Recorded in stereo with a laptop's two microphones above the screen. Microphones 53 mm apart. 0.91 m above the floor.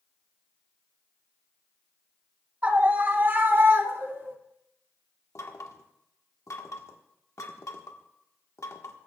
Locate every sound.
2.6 s a scream: 30° right (ahead or behind), 1.3 m; by 4.3 s 60° right (ahead or behind), 2 m
5.3 s knocking: 85° left, 1.4 m